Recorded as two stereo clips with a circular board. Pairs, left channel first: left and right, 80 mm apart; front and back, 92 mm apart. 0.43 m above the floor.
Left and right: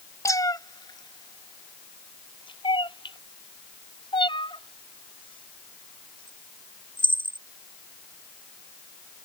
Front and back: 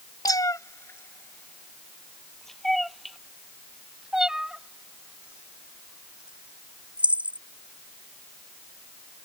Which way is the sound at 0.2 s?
45° left.